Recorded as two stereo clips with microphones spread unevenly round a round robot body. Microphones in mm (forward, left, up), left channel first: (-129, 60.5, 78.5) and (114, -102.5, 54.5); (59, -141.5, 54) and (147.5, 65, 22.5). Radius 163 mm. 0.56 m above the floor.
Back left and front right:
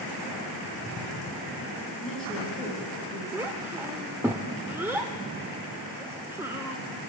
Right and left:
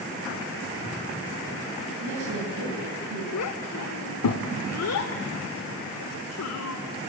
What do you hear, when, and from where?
2.0 s a woman speaking: 60° left, 9 m
3.3 s a child speaking: 115° right, 1.2 m